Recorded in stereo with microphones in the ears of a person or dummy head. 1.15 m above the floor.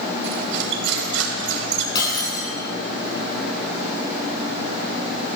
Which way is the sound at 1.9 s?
25° left (ahead or behind).